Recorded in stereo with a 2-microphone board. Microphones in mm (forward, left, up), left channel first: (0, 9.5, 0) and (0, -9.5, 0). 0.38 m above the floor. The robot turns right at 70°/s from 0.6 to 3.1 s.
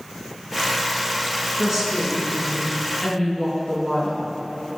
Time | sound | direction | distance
1.6 | a woman speaking | 40° right | 3.5 m